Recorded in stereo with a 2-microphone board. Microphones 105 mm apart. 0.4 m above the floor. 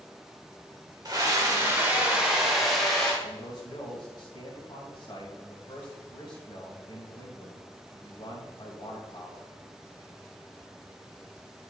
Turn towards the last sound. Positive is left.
turn(degrees=45)  # may be behind; listen again after turning